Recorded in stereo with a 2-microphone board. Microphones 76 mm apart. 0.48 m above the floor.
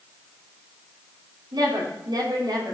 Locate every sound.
1.5 s a woman speaking: 75° right (ahead or behind), 5 m